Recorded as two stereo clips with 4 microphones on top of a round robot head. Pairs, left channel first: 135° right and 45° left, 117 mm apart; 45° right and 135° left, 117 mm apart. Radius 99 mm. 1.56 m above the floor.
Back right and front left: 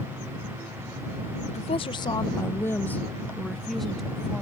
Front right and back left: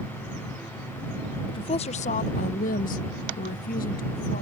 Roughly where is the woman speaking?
Right.